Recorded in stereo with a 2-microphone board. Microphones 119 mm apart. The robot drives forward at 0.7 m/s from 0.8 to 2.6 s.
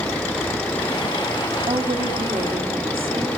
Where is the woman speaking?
50° right (ahead or behind), 1.9 m; by 3.3 s 55° right (ahead or behind), 1.8 m.